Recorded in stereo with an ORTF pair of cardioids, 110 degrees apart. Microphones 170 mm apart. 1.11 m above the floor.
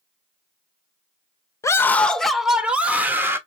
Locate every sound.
1.6 s a scream: 20° left, 0.8 m; by 3.4 s 15° right, 1.5 m